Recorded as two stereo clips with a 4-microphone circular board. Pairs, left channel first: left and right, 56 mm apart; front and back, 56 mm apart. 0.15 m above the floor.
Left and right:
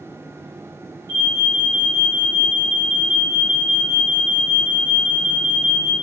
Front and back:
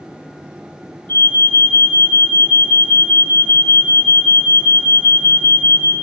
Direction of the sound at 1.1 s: 55° right.